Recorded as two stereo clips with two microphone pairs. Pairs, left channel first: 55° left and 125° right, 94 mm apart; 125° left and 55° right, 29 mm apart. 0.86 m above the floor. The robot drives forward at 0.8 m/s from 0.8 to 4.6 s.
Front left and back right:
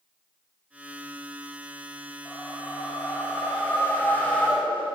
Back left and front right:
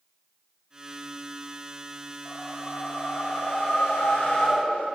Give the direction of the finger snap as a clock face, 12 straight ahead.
No finger snap in this recording.